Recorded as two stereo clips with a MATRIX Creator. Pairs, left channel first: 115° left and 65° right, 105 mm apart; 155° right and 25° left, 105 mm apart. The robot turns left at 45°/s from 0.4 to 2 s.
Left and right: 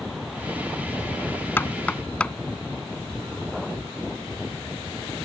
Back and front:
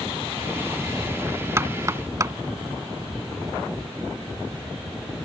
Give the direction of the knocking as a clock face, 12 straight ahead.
10 o'clock.